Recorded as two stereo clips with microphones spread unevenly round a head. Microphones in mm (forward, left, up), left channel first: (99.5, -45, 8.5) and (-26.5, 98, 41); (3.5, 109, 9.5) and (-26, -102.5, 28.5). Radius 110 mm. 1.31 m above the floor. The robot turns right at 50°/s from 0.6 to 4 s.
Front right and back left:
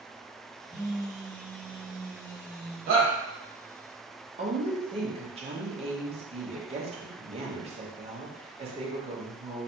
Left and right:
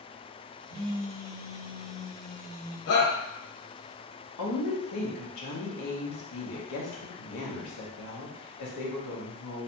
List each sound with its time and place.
0.7 s a phone buzzing: 135° right, 1.7 m; by 2.8 s 30° right, 1.7 m
2.9 s a shout: 85° left, 1.2 m; by 3.1 s 100° left, 1.2 m
4.4 s a woman speaking: 75° left, 1.0 m